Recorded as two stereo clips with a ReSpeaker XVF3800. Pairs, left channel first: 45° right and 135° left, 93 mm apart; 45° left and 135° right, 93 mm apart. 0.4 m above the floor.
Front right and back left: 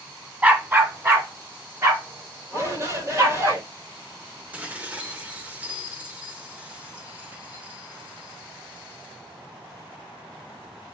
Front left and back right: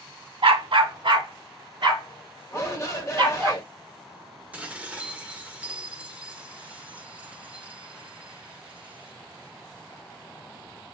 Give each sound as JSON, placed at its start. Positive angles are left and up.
{"t": 0.4, "sound": "a dog barking", "azimuth_deg": -150, "distance_m": 0.6}
{"t": 2.5, "sound": "a shout", "azimuth_deg": 90, "distance_m": 1.1}
{"t": 4.5, "sound": "dishes clattering", "azimuth_deg": 180, "distance_m": 0.5}